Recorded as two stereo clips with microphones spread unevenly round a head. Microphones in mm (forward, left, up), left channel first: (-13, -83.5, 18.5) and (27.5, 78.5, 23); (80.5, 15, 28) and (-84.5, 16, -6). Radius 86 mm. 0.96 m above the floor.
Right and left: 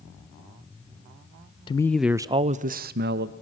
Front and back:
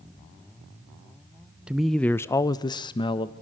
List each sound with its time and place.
1.7 s a man speaking: 125° right, 0.5 m; by 3.3 s 65° left, 1.0 m